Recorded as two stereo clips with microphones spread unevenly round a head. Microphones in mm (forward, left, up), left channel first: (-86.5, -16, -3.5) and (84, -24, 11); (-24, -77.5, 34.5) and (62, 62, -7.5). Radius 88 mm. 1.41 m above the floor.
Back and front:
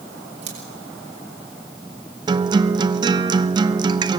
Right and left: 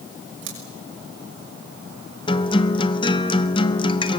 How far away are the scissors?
About 6 m.